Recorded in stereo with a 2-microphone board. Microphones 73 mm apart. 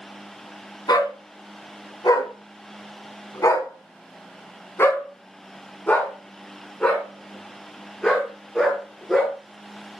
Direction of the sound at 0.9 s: 80° left.